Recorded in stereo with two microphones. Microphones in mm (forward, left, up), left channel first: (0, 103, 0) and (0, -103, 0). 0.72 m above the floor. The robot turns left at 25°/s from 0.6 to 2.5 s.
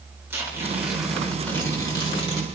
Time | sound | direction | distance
0.3 | tearing paper | 170° right | 3 m